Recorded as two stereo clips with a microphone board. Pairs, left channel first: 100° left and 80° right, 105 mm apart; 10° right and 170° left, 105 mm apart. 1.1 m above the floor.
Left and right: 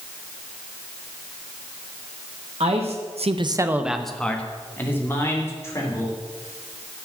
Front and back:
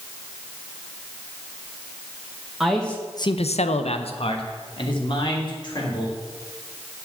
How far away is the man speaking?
About 1.1 m.